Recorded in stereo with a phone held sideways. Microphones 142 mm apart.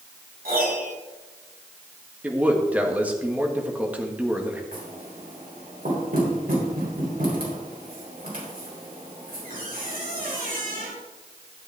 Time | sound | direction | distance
0.5 | a piano | 85° right | 4.5 m
2.2 | a man speaking | 10° right (ahead or behind) | 1.5 m
4.7 | knocking | 90° right | 3.5 m